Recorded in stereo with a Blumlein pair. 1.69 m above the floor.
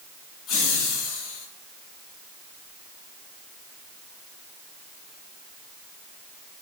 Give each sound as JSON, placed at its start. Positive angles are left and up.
{"t": 0.5, "sound": "laughter", "azimuth_deg": 30, "distance_m": 2.5}